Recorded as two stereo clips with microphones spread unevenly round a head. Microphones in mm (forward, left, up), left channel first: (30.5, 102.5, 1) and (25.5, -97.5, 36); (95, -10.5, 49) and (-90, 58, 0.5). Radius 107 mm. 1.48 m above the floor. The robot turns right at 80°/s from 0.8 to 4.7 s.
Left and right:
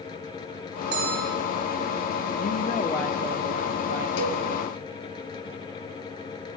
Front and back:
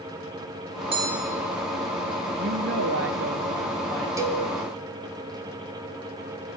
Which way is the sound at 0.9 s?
140° right.